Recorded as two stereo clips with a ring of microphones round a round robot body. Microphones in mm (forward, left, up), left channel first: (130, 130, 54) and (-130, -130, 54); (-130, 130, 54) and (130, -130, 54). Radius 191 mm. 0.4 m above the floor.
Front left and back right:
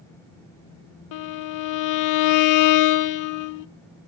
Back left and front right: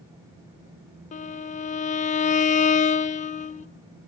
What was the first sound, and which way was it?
A violin, 70° left.